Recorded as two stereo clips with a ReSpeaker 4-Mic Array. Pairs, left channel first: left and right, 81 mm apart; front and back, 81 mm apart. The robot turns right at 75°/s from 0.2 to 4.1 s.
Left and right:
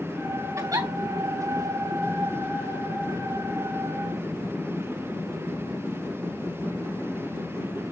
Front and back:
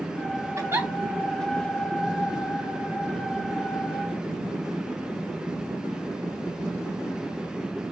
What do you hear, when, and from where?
0.6 s a giggle: 135° right, 3 m; by 0.9 s 110° right, 3 m